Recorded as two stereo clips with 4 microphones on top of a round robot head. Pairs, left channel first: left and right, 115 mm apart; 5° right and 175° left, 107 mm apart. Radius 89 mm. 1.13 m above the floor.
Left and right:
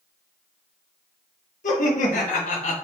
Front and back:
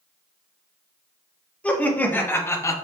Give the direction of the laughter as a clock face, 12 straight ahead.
10 o'clock.